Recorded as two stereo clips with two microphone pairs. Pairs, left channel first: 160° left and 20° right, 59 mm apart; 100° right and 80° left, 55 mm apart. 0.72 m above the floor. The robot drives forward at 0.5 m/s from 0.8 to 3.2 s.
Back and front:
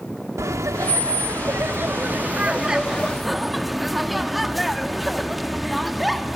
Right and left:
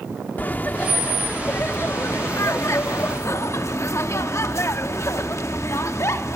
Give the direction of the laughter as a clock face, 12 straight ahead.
1 o'clock.